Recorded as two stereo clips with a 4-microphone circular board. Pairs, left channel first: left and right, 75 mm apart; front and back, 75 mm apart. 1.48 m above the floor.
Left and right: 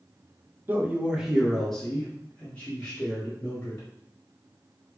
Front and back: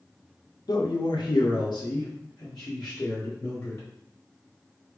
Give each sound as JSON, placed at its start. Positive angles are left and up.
{"t": 0.7, "sound": "a man speaking", "azimuth_deg": -30, "distance_m": 0.7}